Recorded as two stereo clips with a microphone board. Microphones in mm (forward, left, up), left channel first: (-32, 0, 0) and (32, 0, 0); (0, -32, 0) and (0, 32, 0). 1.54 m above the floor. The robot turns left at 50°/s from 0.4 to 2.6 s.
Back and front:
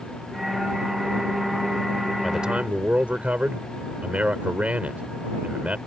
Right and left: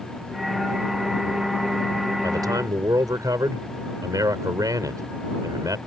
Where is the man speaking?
90° left; by 5.8 s 70° left.